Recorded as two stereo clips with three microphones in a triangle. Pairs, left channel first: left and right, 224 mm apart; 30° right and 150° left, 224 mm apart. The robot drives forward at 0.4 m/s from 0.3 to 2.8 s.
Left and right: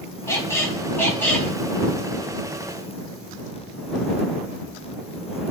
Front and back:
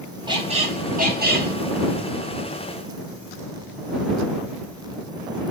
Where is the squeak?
140° left, 0.6 m; by 1.5 s 170° left, 0.9 m.